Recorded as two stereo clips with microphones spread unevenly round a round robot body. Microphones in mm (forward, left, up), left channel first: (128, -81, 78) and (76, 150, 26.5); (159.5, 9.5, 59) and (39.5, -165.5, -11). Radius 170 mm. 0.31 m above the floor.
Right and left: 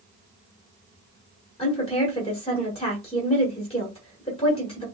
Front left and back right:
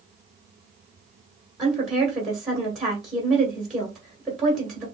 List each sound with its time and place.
1.6 s a woman speaking: 140° right, 1.3 m